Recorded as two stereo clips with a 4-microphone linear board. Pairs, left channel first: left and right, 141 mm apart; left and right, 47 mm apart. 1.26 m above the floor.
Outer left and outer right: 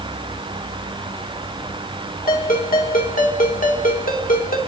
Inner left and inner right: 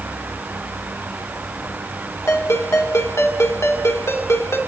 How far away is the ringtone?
About 2.5 m.